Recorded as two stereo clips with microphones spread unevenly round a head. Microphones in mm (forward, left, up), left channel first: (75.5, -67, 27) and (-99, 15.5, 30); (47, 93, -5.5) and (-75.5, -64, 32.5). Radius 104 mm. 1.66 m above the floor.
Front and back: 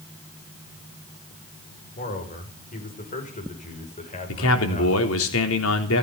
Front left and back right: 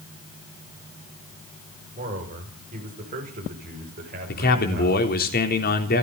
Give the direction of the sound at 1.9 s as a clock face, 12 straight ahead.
2 o'clock.